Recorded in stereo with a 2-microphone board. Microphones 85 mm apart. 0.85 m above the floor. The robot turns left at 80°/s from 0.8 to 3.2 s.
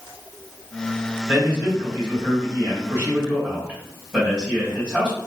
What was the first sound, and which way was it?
A man speaking, 5° right.